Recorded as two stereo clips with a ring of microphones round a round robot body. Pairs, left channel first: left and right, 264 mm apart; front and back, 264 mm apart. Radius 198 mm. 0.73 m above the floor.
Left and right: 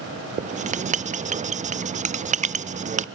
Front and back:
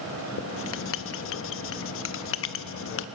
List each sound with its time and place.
0.4 s writing: 25° right, 0.5 m